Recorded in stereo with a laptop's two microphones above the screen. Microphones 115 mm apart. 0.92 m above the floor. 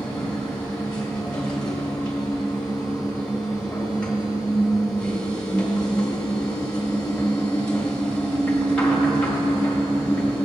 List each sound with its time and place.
0.0 s a machine running: 10° left (ahead or behind), 1.9 m